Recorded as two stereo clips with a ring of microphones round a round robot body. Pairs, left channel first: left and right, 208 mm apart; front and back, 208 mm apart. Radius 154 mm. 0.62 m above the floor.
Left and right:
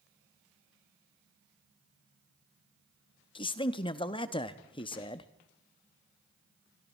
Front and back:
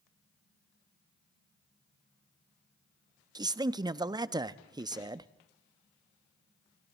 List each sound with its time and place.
3.4 s a man speaking: 125° left, 0.7 m